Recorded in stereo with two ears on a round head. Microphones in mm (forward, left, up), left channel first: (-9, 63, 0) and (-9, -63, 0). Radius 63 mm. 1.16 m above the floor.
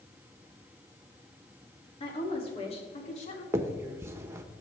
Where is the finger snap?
20° right (ahead or behind), 1.2 m.